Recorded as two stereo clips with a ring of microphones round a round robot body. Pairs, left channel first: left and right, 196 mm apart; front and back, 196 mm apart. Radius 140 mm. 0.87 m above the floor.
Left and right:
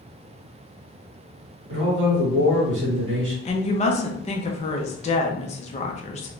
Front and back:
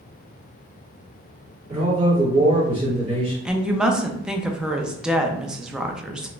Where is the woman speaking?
95° left, 0.6 m.